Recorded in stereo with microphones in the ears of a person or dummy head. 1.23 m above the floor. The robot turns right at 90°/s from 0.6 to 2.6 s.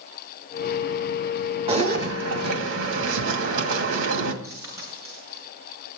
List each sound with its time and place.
1.7 s a zipper: 155° right, 2 m; by 4.3 s 70° right, 2 m
4.4 s a dropped coin: 15° right (ahead or behind), 7.5 m